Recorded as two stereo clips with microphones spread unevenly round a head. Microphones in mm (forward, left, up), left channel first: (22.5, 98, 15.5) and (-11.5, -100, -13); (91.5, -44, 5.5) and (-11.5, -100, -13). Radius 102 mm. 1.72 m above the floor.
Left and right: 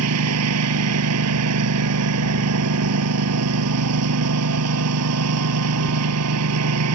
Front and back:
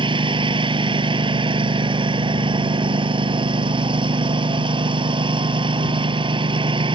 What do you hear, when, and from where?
0.0 s a lawn mower: 105° right